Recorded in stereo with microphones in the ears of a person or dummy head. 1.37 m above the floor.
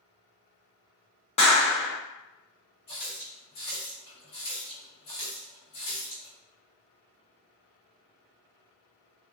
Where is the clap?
30° left (ahead or behind), 0.9 m.